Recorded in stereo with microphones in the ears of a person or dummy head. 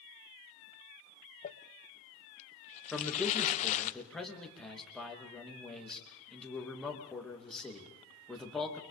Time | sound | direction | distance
1.4 | crumpling | 35° left (ahead or behind) | 1.0 m
2.9 | a man speaking | 5° left (ahead or behind) | 3 m